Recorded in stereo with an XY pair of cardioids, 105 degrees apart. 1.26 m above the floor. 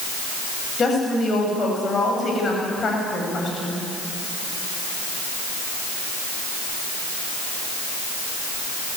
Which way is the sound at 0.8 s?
40° left.